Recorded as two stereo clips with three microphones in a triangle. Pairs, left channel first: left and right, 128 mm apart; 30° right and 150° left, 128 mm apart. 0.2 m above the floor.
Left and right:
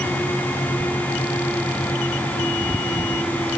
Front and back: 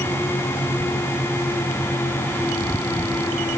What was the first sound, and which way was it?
Only background noise.